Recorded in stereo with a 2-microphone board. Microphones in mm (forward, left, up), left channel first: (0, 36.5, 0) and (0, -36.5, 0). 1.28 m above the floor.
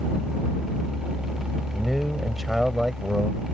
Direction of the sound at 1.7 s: Centre (ahead or behind).